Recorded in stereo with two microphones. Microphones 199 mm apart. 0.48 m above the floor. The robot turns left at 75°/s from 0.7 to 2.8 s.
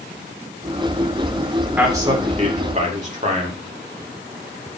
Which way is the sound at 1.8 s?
10° right (ahead or behind).